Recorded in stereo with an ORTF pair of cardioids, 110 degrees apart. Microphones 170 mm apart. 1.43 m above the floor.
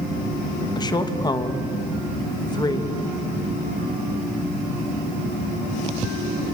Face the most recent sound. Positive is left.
turn(degrees=25)